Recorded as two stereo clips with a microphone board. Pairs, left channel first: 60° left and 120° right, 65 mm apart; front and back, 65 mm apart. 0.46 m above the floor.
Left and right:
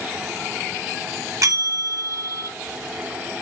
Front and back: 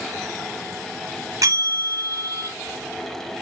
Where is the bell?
145° right, 1.4 m.